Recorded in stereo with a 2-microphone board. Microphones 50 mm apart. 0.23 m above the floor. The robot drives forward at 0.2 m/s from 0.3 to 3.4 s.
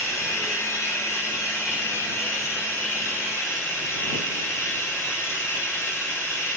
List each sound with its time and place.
0.0 s running water: 65° left (ahead or behind), 1.8 m; by 6.6 s 50° left (ahead or behind), 2 m